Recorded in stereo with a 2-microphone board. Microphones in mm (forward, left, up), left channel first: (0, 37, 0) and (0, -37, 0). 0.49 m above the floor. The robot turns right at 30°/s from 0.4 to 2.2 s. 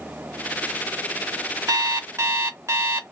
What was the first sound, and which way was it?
An alarm clock, 60° right (ahead or behind).